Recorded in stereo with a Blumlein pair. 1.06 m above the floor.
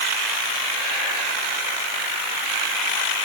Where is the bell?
No bell in this recording.